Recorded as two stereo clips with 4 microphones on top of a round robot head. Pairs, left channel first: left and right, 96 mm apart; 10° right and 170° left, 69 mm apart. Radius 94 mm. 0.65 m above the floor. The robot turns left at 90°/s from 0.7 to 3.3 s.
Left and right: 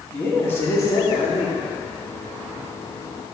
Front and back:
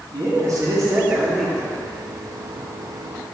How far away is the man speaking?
About 2.0 m.